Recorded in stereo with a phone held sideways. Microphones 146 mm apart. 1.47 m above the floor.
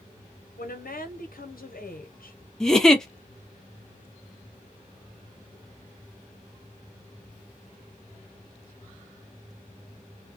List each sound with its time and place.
0.6 s a woman speaking: 90° left, 0.8 m
2.6 s a giggle: 5° left (ahead or behind), 0.5 m